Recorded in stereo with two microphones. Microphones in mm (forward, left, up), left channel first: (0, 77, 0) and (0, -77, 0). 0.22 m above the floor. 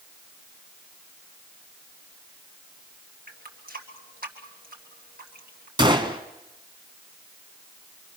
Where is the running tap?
70° right (ahead or behind), 3 m.